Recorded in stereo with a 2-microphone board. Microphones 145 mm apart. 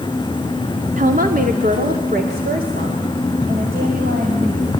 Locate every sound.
1.0 s a woman speaking: 55° right (ahead or behind), 1.3 m; by 4.8 s 85° right, 5.5 m